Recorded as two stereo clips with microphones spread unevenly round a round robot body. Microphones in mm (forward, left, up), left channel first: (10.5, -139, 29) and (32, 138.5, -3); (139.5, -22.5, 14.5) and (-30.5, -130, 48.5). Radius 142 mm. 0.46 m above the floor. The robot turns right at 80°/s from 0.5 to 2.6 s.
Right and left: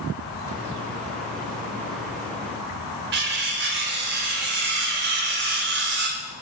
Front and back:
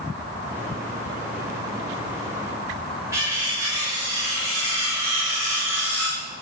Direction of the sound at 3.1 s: 130° left.